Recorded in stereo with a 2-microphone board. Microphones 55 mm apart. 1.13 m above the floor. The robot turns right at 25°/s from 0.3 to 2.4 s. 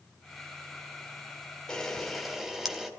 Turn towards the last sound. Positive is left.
turn(degrees=-5)  # may be behind; listen again after turning